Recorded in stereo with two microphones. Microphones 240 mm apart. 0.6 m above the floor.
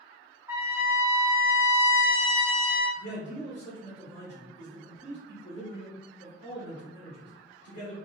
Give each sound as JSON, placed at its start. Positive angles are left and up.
{"t": 0.5, "sound": "a trumpet", "side_deg": -10, "distance_m": 0.6}
{"t": 3.0, "sound": "a man speaking", "side_deg": 60, "distance_m": 1.5}